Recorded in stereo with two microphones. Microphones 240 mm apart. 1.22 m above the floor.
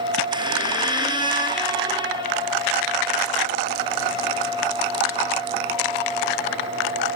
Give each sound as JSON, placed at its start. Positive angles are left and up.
{"t": 0.3, "sound": "a squeak", "side_deg": -20, "distance_m": 1.4}